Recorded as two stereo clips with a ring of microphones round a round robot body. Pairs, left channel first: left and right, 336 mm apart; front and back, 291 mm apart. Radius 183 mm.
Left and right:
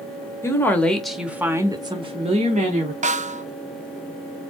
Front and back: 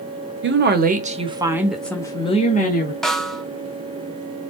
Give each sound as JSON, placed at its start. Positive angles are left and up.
{"t": 0.4, "sound": "a woman speaking", "azimuth_deg": 170, "distance_m": 1.3}
{"t": 3.0, "sound": "a snare drum", "azimuth_deg": -85, "distance_m": 0.6}